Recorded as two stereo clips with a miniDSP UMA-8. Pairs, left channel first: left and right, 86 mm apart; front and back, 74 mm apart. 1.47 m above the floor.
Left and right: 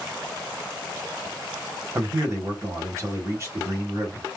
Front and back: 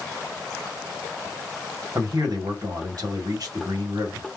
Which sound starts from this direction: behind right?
A man speaking, at 1.9 s.